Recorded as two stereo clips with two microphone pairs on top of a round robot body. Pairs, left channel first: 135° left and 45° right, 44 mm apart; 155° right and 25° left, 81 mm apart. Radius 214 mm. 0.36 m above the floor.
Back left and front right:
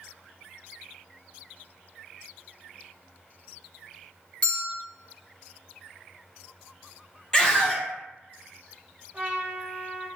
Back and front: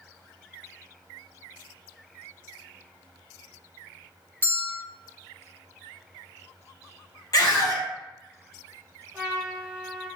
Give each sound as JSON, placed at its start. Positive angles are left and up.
{"t": 4.4, "sound": "a bell", "azimuth_deg": 175, "distance_m": 1.1}
{"t": 7.3, "sound": "a scream", "azimuth_deg": -155, "distance_m": 1.2}
{"t": 9.1, "sound": "a trumpet", "azimuth_deg": -20, "distance_m": 1.5}